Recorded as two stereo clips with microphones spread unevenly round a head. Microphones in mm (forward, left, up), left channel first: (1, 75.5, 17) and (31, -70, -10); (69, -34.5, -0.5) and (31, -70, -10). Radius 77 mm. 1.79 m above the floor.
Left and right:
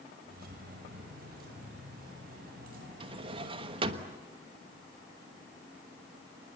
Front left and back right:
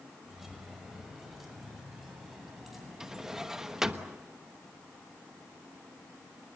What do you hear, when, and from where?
0.3 s keys jangling: 50° right, 5 m
3.0 s a drawer: 45° right, 1.1 m